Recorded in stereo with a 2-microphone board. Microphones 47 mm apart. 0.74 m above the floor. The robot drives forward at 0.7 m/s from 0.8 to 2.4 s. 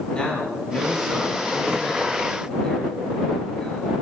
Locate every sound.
0.1 s a man speaking: 20° left (ahead or behind), 5.5 m; by 3.9 s 15° left (ahead or behind), 7 m